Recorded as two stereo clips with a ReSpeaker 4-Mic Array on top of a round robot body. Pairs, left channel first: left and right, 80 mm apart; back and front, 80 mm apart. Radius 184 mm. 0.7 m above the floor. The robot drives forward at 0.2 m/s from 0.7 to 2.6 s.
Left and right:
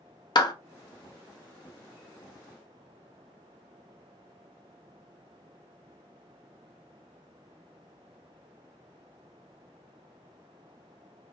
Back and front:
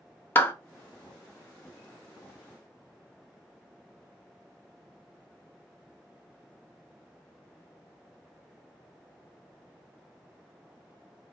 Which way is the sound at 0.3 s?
115° left.